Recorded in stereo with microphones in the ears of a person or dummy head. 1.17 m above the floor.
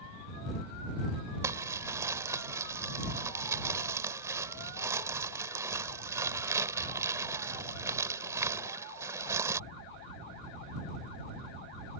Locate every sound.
1.4 s crumpling: 15° right (ahead or behind)